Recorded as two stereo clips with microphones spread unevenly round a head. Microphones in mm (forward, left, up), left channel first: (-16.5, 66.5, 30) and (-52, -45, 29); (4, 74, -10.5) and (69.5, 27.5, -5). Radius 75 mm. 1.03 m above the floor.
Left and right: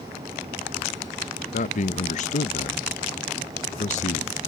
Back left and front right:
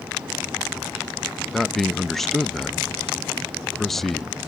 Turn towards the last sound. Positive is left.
turn(degrees=60)